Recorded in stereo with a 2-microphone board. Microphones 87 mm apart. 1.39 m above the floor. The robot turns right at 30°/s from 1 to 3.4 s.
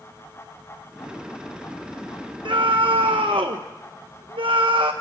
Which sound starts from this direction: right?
A scream, at 2.5 s.